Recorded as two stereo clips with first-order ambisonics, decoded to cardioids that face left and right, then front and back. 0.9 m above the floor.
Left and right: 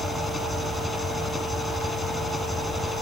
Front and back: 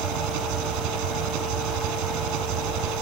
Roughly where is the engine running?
Behind.